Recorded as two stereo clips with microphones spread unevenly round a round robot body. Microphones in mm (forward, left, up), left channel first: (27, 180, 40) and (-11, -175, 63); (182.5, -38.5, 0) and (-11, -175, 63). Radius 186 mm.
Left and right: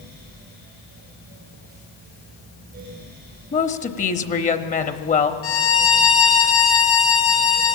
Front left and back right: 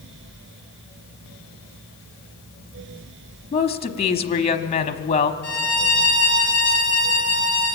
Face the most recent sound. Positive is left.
turn(degrees=135)